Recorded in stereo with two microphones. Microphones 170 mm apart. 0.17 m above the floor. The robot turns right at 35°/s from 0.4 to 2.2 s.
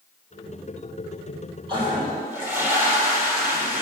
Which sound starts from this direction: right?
A toilet flushing, at 1.7 s.